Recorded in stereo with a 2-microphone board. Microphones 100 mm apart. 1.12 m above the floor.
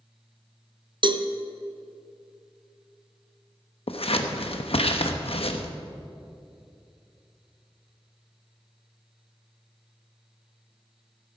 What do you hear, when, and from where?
1.0 s a cowbell: 50° right (ahead or behind), 0.6 m
3.9 s scissors: 70° left (ahead or behind), 0.9 m